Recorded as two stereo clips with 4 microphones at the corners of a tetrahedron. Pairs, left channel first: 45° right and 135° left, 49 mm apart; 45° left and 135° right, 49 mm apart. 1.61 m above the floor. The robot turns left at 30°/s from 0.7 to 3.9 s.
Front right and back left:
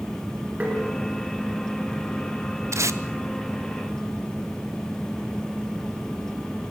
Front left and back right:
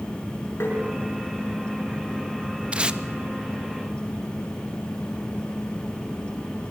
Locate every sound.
0.6 s tapping: 75° left, 6 m
2.7 s tape being pulled: 160° left, 0.9 m; by 3.0 s 150° left, 0.9 m